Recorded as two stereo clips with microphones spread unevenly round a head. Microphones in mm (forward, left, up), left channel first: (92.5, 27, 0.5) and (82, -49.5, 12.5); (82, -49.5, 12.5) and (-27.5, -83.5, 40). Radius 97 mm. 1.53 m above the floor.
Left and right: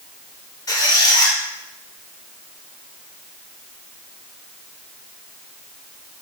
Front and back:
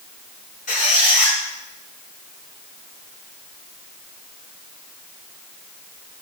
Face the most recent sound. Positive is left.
turn(degrees=50)